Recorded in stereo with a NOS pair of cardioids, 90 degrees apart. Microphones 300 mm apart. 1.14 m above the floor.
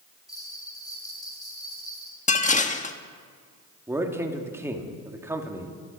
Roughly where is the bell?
Ahead.